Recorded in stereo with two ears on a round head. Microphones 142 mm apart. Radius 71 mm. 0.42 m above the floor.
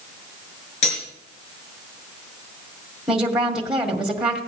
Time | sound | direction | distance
0.8 | cutlery clinking | 45° left (ahead or behind) | 4.5 m
3.1 | a woman speaking | 5° right (ahead or behind) | 2 m